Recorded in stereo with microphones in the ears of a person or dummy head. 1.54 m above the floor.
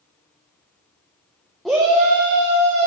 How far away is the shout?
About 0.6 m.